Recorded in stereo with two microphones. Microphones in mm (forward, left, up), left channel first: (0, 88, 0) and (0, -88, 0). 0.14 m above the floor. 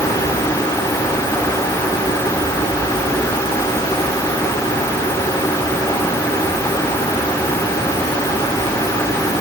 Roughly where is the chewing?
No chewing in this recording.